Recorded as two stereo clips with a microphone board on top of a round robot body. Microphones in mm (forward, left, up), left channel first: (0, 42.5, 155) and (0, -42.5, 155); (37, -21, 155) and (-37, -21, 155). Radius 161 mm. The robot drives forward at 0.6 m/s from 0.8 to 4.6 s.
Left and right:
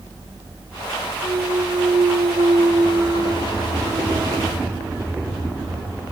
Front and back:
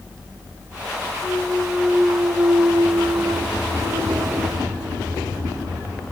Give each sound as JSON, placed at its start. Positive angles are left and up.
{"t": 1.2, "sound": "a clunk", "azimuth_deg": -60, "distance_m": 0.7}